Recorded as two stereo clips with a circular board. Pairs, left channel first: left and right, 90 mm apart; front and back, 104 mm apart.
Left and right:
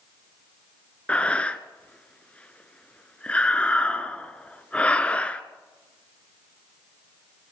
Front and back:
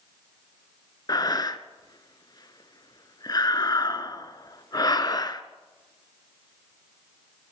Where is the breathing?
20° left, 0.6 m.